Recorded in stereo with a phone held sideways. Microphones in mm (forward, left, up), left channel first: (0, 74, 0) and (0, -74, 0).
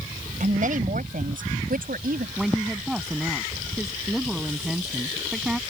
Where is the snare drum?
I don't hear a snare drum.